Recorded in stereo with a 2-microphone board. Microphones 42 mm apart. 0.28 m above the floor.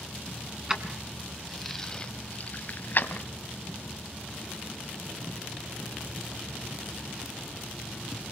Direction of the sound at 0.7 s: 15° right (ahead or behind).